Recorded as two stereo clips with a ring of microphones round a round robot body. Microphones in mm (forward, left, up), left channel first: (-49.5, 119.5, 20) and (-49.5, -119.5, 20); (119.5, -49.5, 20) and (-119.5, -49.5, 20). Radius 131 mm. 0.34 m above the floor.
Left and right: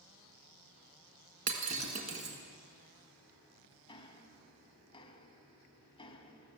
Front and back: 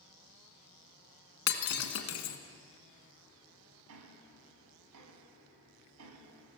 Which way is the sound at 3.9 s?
160° left.